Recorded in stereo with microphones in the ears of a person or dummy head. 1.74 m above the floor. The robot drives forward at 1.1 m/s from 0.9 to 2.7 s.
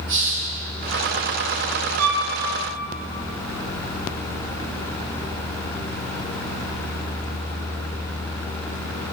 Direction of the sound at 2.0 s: 80° right.